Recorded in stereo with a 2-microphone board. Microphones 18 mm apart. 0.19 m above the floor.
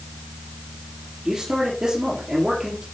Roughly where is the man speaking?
Right.